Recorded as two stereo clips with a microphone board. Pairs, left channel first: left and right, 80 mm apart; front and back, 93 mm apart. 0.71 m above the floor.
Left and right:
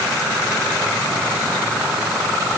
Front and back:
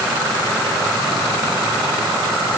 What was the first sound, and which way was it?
Only background noise.